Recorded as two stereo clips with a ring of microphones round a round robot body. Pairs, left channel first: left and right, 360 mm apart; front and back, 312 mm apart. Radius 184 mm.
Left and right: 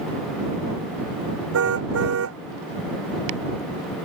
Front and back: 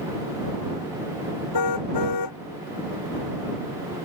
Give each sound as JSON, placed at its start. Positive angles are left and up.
{"t": 1.5, "sound": "a car horn", "azimuth_deg": -35}